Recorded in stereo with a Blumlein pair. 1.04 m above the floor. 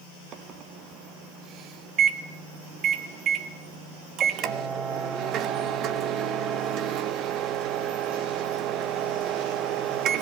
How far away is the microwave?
About 1.3 m.